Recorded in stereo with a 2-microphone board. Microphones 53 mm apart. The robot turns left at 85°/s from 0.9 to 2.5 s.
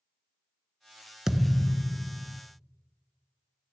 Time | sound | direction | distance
1.3 | a thud | 170° right | 0.6 m